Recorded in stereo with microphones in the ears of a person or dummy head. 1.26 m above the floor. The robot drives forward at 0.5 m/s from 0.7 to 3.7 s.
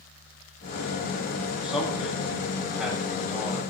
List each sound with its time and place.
1.6 s a man speaking: 5° right (ahead or behind), 7.5 m